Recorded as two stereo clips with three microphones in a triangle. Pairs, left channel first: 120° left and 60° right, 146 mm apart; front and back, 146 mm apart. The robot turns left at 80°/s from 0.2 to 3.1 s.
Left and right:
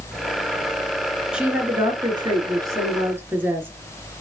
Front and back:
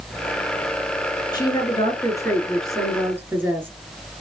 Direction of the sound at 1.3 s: 20° left.